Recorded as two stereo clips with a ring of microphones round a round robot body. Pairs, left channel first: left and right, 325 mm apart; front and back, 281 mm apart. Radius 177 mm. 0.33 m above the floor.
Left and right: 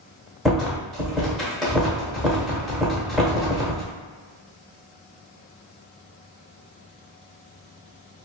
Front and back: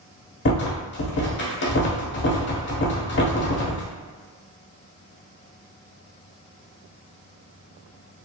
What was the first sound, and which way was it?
A rattle, straight ahead.